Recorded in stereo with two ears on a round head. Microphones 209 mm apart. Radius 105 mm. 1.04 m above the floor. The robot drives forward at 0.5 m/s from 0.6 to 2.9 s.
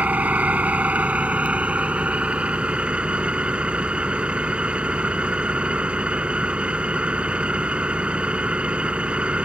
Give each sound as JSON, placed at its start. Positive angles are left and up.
{"t": 0.0, "sound": "an engine running", "side_deg": -5}